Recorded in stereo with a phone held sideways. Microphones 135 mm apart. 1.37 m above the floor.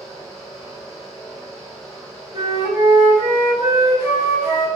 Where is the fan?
Centre (ahead or behind), 1.3 m.